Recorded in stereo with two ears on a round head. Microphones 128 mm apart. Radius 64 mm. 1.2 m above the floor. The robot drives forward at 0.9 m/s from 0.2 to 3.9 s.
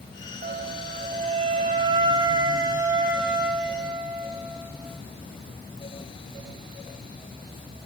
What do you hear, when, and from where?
0.4 s a flute: 45° right (ahead or behind), 1.1 m; by 5.0 s 15° right (ahead or behind), 3 m